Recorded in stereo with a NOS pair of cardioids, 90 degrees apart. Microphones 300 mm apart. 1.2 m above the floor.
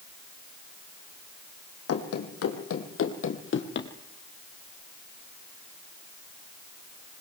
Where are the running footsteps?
55° left, 3.5 m; by 3.9 s 40° left, 2.5 m.